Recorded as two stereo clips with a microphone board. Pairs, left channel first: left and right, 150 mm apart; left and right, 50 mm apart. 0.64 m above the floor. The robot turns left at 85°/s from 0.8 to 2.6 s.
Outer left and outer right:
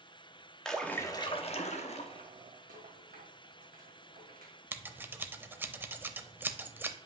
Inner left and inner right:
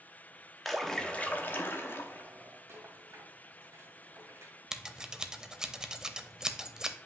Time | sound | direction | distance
0.7 | a splash | 175° left | 0.9 m
2.7 | a rattle | 70° right (ahead or behind) | 2 m
4.7 | scissors | 15° right (ahead or behind) | 0.6 m